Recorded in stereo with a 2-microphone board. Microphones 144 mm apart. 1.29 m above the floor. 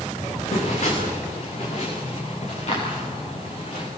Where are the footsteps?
55° left (ahead or behind), 8.5 m; by 3.9 s 45° left (ahead or behind), 12 m.